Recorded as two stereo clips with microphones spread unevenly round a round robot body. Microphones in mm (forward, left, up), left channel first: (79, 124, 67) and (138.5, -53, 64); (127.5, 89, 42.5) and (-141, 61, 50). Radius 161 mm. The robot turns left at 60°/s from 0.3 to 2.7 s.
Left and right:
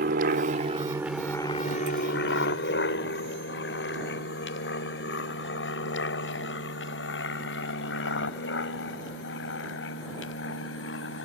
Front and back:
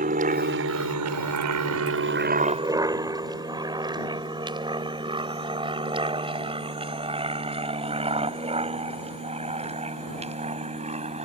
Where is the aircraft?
115° right; by 11.3 s 120° left.